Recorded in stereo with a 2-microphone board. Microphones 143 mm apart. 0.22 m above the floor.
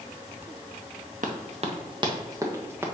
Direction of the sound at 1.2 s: 65° right (ahead or behind).